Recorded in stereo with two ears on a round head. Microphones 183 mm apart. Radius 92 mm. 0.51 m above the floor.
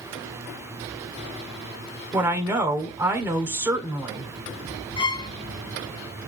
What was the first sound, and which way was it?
A woman speaking, 10° right (ahead or behind).